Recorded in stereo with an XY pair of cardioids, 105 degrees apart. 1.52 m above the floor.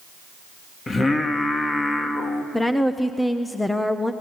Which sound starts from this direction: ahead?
A woman speaking, at 2.5 s.